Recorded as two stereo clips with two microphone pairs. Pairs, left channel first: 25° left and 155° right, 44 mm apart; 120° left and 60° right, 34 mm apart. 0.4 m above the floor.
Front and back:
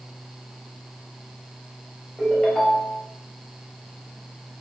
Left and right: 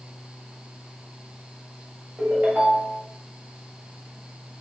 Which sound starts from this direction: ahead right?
A ringtone, at 2.2 s.